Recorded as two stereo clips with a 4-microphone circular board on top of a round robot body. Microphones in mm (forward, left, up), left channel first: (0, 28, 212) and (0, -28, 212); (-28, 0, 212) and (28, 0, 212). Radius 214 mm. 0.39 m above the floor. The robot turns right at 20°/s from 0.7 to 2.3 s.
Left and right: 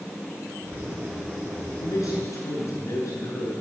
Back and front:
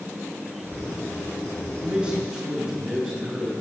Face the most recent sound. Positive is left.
turn(degrees=80)